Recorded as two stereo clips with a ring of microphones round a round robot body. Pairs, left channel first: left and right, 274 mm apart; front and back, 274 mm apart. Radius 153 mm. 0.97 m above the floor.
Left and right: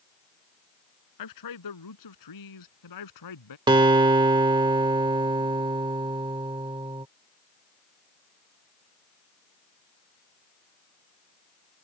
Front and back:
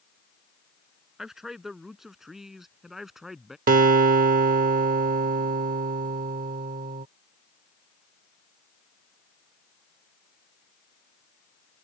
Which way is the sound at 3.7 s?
150° right.